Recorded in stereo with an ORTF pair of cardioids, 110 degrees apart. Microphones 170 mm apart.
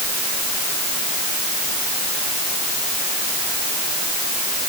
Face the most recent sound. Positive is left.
No sound to turn to.